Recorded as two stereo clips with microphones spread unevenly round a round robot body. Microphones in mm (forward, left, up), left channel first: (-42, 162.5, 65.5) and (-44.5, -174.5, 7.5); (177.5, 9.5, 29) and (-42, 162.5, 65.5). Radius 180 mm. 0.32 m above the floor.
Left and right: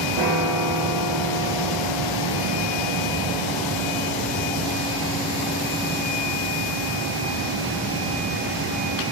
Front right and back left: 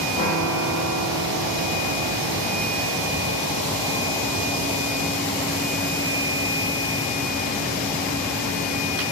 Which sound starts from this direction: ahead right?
A piano, at 0.2 s.